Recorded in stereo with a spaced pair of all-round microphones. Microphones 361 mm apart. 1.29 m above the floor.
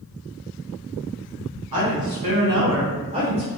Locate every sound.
1.7 s a woman speaking: 80° right, 1.0 m; by 3.5 s centre (ahead or behind), 0.7 m